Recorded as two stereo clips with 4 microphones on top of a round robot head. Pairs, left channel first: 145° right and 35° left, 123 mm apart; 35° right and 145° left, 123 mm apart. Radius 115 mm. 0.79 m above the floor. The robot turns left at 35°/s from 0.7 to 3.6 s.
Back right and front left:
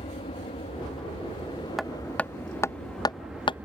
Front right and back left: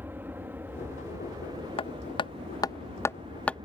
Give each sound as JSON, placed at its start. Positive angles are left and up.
{"t": 0.0, "sound": "an aircraft", "azimuth_deg": -150}
{"t": 1.8, "sound": "hammering", "azimuth_deg": -55}